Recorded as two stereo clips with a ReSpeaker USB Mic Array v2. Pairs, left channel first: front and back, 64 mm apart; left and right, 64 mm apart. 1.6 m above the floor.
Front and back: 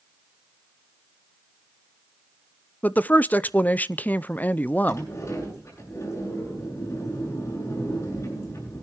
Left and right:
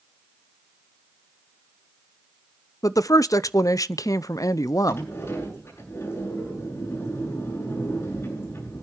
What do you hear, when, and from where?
2.8 s a woman speaking: 65° left, 0.5 m
4.9 s a sliding door: 45° left, 8 m